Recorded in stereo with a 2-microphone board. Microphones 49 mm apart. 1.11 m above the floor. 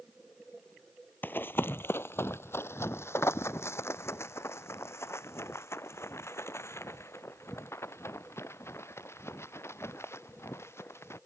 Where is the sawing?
No sawing in this recording.